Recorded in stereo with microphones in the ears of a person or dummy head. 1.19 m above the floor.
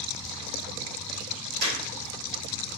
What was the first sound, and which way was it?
A clap, 65° right (ahead or behind).